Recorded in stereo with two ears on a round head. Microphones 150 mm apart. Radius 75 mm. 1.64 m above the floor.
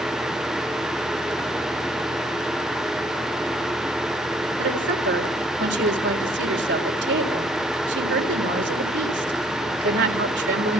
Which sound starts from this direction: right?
A woman speaking, at 4.6 s.